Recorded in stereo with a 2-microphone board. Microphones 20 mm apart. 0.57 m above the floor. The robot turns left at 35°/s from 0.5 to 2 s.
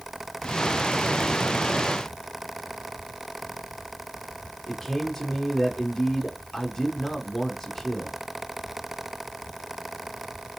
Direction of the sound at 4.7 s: 10° left (ahead or behind).